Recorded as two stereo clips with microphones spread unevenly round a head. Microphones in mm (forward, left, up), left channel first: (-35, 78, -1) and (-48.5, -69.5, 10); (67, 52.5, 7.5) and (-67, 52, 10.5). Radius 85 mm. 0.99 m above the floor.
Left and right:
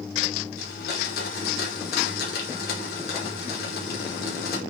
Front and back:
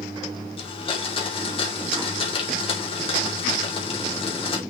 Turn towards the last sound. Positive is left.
turn(degrees=50)